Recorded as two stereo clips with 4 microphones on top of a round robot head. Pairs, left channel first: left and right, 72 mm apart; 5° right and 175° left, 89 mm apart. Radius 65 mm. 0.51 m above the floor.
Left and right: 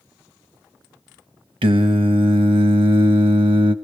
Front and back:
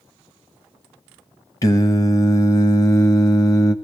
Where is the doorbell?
No doorbell in this recording.